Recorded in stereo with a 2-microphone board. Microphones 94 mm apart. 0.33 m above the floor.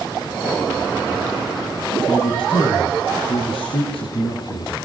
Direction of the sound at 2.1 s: 70° left (ahead or behind).